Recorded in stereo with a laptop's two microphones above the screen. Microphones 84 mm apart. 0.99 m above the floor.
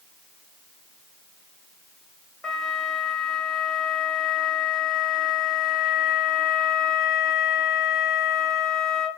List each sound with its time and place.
2.4 s a flute: 10° left (ahead or behind), 0.9 m